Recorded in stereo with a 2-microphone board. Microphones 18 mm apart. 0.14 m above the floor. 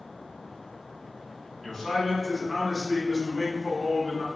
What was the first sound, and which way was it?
A man speaking, 20° left (ahead or behind).